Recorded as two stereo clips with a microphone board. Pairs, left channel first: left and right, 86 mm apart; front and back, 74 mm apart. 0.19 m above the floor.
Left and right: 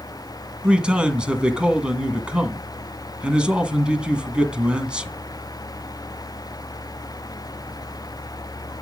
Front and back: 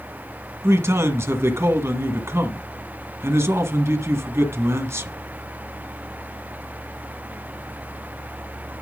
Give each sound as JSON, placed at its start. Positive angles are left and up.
{"t": 0.6, "sound": "a man speaking", "azimuth_deg": -160, "distance_m": 1.6}